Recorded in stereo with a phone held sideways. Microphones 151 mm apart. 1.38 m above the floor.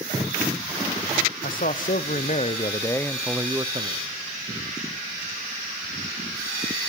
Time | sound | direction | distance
1.4 | a man speaking | 70° left (ahead or behind) | 1.1 m